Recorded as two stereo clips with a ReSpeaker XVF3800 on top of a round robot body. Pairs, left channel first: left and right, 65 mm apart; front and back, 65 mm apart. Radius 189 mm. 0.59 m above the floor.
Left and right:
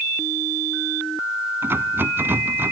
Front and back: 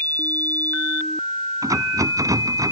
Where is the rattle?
150° right.